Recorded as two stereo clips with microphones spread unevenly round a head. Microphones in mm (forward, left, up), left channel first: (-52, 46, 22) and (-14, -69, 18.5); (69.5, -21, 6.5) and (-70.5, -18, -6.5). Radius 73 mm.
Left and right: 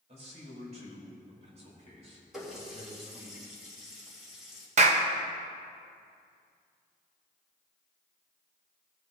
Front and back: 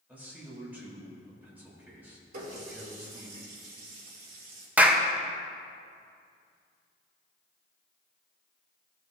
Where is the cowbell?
No cowbell in this recording.